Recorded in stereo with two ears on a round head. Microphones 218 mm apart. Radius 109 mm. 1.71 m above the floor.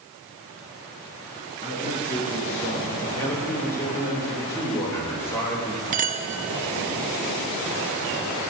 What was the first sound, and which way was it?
A man speaking, 15° left (ahead or behind).